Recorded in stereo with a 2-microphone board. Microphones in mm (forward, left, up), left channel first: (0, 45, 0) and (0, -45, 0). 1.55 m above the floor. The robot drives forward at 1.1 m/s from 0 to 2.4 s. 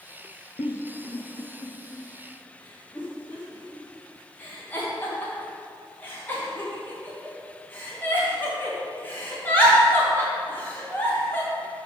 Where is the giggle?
70° left (ahead or behind), 0.7 m; by 11.5 s 20° left (ahead or behind), 1.9 m.